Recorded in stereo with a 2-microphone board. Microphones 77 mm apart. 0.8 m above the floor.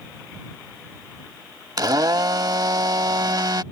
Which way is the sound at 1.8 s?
60° right (ahead or behind).